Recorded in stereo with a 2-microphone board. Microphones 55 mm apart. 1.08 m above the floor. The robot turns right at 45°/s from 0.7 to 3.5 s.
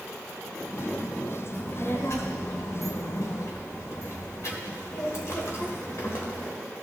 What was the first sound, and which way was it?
A child speaking, 30° left (ahead or behind).